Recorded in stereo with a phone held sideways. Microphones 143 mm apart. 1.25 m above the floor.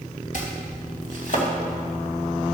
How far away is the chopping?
About 2.5 m.